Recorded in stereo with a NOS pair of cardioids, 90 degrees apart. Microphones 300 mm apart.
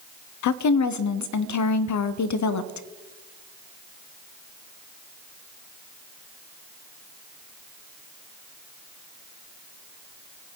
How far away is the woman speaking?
About 0.8 m.